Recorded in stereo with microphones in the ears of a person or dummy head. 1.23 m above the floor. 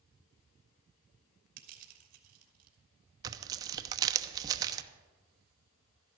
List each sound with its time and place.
1.6 s crushing: 50° right (ahead or behind), 2.5 m
3.2 s tearing paper: 20° right (ahead or behind), 0.8 m